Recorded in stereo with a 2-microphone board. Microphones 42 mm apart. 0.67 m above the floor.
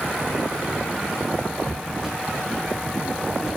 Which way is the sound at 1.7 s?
Centre (ahead or behind).